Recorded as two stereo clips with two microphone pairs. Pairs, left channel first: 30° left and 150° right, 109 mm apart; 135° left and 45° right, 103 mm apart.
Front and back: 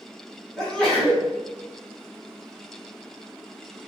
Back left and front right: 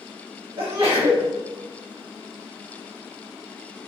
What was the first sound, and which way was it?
A sneeze, 50° right.